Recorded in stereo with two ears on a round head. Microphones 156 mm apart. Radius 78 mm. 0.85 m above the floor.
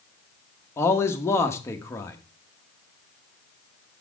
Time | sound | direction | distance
0.8 | a man speaking | 15° left (ahead or behind) | 0.9 m